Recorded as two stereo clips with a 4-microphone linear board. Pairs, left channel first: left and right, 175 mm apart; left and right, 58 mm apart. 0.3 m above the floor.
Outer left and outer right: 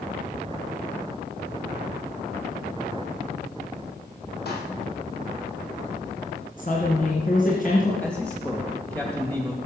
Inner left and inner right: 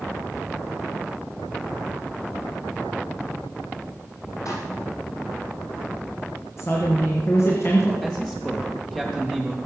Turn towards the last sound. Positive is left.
turn(degrees=10)  # may be behind; listen again after turning